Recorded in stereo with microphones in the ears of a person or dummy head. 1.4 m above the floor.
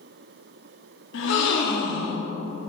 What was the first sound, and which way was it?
A gasp, 75° left (ahead or behind).